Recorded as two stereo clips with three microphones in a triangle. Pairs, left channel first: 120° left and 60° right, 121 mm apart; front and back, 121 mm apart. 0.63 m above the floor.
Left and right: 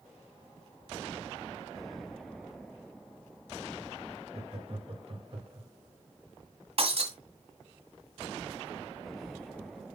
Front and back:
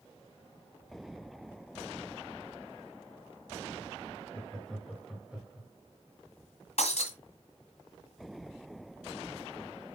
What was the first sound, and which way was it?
Laughter, 80° right.